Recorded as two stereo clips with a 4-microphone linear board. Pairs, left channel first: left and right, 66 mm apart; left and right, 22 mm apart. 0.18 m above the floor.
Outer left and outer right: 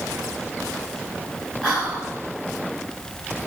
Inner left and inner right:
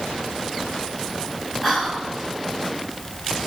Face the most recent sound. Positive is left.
turn(degrees=-10)  # may be behind; listen again after turning